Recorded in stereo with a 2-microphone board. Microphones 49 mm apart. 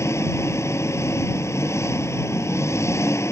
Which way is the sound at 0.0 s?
75° left (ahead or behind).